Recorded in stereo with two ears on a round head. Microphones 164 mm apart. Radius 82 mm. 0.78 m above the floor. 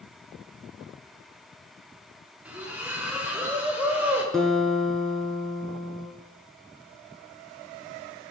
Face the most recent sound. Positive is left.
turn(degrees=0)  # may be behind; listen again after turning